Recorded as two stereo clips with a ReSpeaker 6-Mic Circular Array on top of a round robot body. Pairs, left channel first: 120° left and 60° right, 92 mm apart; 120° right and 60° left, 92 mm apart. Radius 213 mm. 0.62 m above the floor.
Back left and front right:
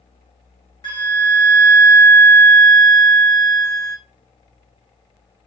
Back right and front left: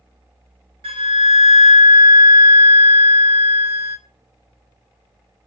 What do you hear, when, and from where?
0.8 s a flute: 80° left, 1.2 m